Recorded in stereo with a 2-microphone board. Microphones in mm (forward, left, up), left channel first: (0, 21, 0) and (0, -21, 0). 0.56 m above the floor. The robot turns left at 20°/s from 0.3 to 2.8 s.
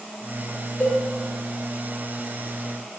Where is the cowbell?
40° left (ahead or behind), 0.8 m.